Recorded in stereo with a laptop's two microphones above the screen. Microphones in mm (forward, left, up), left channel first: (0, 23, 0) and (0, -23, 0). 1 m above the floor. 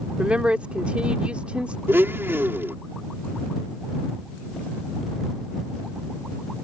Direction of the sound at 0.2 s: 25° right (ahead or behind).